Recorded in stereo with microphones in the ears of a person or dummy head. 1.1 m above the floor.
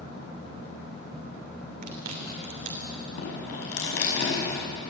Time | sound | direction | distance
1.8 | chewing | 55° right (ahead or behind) | 3 m
3.2 | dripping | 70° left (ahead or behind) | 5.5 m